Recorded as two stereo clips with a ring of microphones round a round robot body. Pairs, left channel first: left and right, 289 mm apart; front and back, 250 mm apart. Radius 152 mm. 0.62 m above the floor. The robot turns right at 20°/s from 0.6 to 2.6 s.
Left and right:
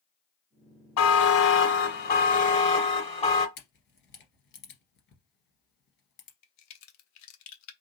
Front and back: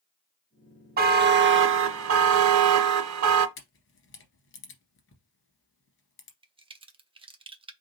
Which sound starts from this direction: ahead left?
A camera shutter, at 3.6 s.